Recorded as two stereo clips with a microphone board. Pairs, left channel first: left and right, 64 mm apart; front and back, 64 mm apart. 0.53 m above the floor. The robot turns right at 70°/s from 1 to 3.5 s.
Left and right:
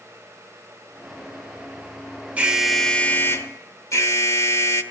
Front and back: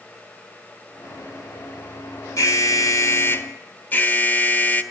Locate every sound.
2.4 s an alarm: 25° right, 1.1 m; by 4.8 s 55° left, 1.1 m